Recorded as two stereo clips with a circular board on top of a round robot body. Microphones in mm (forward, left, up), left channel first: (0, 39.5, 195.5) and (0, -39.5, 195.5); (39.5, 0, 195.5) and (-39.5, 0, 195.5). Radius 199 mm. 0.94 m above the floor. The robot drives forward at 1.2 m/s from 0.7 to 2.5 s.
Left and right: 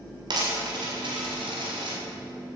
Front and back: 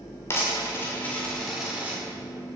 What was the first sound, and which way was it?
A dropped coin, 60° right.